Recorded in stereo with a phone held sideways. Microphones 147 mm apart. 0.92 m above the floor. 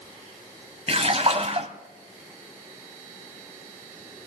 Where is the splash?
45° right (ahead or behind), 1.0 m.